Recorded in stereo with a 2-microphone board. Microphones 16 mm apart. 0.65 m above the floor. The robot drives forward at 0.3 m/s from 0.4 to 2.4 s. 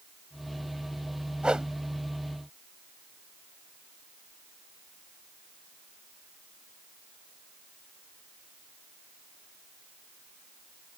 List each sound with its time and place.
1.4 s a whoosh: 65° right (ahead or behind)